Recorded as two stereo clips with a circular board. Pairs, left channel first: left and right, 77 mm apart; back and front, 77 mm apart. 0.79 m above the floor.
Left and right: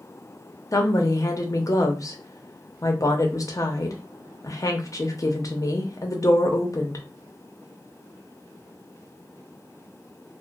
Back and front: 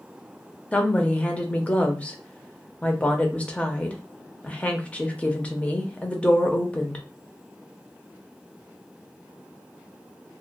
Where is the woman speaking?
110° left, 0.6 m.